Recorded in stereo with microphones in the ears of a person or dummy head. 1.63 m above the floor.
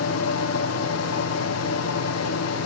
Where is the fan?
85° left, 1.3 m.